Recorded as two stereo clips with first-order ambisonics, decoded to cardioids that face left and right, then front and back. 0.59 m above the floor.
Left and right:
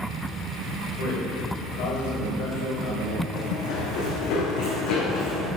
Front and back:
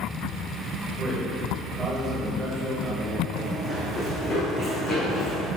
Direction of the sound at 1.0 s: 100° left.